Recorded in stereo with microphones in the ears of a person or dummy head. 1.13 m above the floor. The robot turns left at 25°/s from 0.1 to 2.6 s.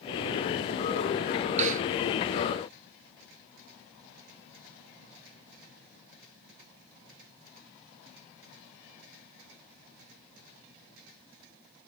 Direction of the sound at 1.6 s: 45° right (ahead or behind).